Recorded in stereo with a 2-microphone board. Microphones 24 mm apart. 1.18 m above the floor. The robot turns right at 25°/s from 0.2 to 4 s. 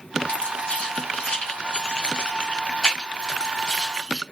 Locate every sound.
0.3 s keys jangling: 75° left (ahead or behind), 1.9 m; by 4.2 s 5° left (ahead or behind), 1.9 m